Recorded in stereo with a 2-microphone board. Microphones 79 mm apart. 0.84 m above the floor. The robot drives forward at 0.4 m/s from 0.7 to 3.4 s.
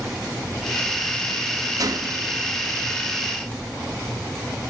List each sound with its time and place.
1.8 s a gunshot: 55° right (ahead or behind), 0.6 m; by 2.4 s 40° right (ahead or behind), 0.7 m